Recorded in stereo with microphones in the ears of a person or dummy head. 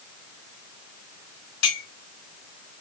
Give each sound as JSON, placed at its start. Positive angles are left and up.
{"t": 1.6, "sound": "a clink", "side_deg": 80, "distance_m": 1.9}